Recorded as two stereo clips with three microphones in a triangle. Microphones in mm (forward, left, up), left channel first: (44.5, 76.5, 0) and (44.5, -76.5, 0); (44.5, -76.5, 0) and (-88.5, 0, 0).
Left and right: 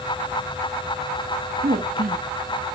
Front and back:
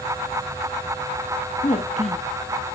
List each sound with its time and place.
1.6 s a woman speaking: 75° right, 1.2 m